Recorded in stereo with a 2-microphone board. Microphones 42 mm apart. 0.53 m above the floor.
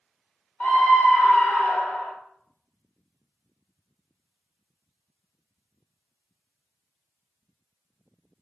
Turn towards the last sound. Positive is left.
turn(degrees=60)  # may be behind; listen again after turning